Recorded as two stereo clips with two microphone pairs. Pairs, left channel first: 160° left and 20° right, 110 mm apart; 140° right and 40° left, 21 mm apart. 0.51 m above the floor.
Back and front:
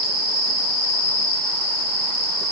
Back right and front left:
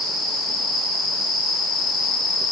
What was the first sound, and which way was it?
Only background noise.